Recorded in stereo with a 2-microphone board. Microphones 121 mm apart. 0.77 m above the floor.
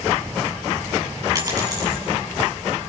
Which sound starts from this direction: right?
A dropped coin, at 1.4 s.